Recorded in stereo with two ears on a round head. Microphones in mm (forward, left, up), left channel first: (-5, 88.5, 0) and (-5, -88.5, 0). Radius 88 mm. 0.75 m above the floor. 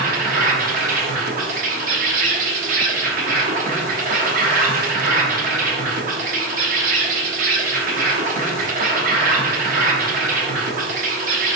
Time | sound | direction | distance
0.0 | an insect | 45° right (ahead or behind) | 0.8 m